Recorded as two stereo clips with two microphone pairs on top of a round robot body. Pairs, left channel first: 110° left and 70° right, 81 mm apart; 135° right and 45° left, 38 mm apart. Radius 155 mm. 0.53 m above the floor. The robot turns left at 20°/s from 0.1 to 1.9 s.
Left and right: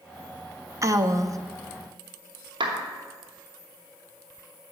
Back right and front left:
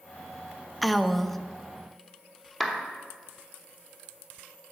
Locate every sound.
0.8 s a woman speaking: 30° right, 0.7 m; by 1.4 s 45° right, 0.7 m
2.6 s a clap: 50° right, 1.3 m